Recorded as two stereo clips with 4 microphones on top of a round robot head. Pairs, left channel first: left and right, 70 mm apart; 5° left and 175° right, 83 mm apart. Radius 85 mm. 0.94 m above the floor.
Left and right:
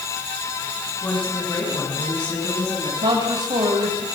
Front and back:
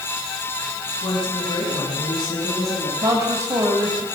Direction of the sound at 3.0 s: 120° right.